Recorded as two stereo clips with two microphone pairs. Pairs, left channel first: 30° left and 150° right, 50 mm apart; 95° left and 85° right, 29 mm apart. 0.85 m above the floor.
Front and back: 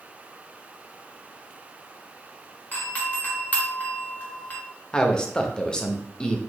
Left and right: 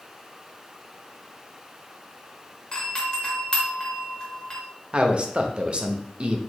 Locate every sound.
2.7 s a doorbell: 60° left, 1.1 m
4.9 s a man speaking: 45° right, 0.6 m